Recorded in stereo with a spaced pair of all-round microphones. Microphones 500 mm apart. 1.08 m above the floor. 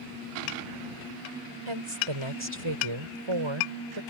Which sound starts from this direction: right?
A woman speaking, at 1.7 s.